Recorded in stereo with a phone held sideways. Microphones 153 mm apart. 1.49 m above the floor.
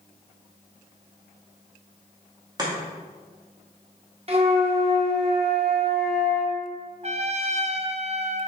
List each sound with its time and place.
2.6 s chopping: 25° right (ahead or behind), 1.9 m
4.3 s a flute: 40° right (ahead or behind), 1.3 m
7.0 s a trumpet: 45° right (ahead or behind), 0.5 m